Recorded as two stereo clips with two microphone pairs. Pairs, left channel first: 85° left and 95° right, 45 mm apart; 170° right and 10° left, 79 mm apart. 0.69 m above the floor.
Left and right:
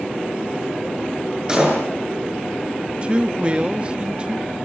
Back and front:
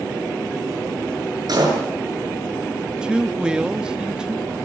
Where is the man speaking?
60° right, 1.1 m.